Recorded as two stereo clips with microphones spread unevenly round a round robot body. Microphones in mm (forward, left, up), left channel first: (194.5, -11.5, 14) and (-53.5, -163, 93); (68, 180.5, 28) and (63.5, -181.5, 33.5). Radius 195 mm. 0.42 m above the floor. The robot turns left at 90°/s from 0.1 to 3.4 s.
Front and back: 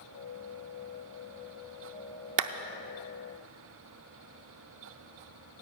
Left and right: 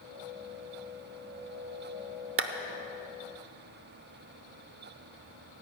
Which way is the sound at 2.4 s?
135° right.